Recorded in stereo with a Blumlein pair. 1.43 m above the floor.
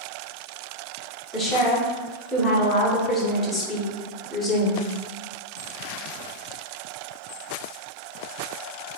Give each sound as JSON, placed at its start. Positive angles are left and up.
{"t": 1.3, "sound": "a woman speaking", "azimuth_deg": 15, "distance_m": 0.9}